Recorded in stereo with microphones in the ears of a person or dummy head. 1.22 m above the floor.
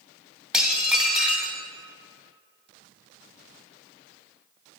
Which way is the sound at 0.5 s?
5° right (ahead or behind).